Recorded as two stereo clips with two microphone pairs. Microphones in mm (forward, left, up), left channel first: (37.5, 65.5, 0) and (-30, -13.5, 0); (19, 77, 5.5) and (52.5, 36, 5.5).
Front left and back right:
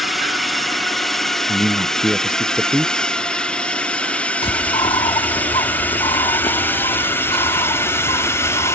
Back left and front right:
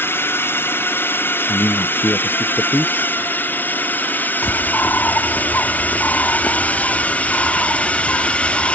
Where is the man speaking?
150° left.